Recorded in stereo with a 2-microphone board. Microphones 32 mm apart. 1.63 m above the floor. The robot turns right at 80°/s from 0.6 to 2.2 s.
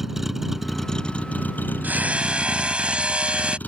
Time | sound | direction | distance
0.0 | a vehicle | 10° right | ?
1.8 | hammering | 65° right (ahead or behind) | ?